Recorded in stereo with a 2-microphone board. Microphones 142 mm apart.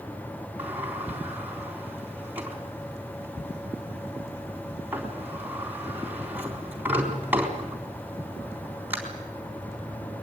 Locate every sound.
0.6 s a sliding door: 10° right (ahead or behind), 4 m